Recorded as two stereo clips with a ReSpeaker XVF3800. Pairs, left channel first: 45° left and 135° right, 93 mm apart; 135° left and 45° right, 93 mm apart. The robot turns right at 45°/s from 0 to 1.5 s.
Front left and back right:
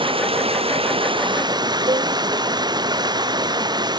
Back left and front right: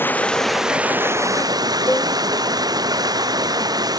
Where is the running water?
160° right; by 4.0 s 90° right.